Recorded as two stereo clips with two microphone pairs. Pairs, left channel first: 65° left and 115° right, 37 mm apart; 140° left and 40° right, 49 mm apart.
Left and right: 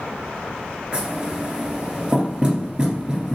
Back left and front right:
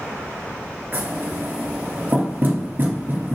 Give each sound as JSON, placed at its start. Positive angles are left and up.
{"t": 0.9, "sound": "knocking", "azimuth_deg": -55, "distance_m": 1.8}